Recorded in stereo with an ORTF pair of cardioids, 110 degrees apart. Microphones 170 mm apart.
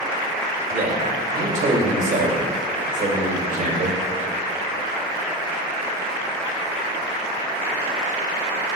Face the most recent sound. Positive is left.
turn(degrees=-45)